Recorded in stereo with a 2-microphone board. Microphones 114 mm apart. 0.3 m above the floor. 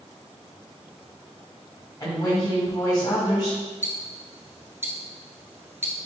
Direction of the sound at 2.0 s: 40° left (ahead or behind).